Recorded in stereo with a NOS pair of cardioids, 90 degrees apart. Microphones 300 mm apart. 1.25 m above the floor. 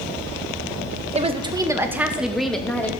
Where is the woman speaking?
20° right, 1.3 m; by 2.9 s 5° left, 2 m.